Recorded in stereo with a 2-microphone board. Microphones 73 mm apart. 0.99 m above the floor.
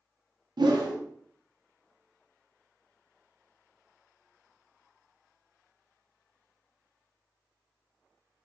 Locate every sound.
0.6 s a whoosh: 75° right (ahead or behind), 0.6 m